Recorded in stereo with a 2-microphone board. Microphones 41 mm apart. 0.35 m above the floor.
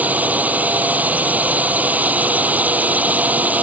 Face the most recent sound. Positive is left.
turn(degrees=-40)  # may be behind; listen again after turning